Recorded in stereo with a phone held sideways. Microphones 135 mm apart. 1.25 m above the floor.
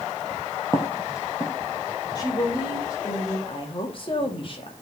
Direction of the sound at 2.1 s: 30° left (ahead or behind).